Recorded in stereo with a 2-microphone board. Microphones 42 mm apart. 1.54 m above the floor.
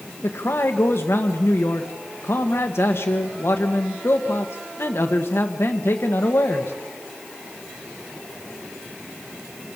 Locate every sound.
0.2 s a man speaking: 75° left (ahead or behind), 1.7 m